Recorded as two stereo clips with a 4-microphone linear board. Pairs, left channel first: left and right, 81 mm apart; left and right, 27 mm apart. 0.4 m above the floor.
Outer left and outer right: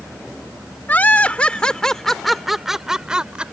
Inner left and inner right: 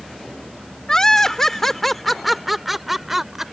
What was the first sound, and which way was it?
Laughter, 20° left (ahead or behind).